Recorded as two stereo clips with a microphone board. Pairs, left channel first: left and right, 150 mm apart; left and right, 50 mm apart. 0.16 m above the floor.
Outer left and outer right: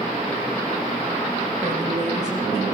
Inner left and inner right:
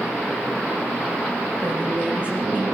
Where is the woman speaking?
30° right (ahead or behind), 9 m; by 2.6 s 25° right (ahead or behind), 9.5 m.